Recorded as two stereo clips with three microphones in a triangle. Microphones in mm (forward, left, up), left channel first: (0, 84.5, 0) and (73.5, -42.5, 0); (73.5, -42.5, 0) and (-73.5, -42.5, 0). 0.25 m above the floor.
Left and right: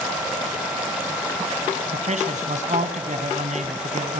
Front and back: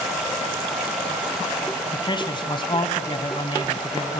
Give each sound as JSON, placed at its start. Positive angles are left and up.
{"t": 1.9, "sound": "a man speaking", "azimuth_deg": -50, "distance_m": 1.6}